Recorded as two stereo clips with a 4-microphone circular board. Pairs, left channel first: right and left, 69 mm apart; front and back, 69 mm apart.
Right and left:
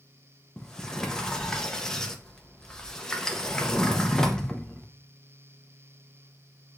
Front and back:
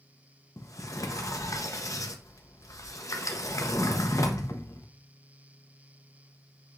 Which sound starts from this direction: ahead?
A sliding door, at 0.6 s.